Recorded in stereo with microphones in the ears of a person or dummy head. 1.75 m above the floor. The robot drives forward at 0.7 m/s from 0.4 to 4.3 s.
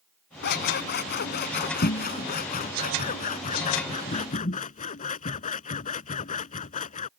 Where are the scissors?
55° left (ahead or behind); by 7.1 s 40° left (ahead or behind).